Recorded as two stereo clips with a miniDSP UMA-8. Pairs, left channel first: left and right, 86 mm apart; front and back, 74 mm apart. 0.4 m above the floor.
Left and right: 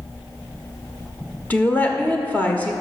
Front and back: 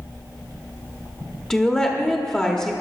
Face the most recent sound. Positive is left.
turn(degrees=65)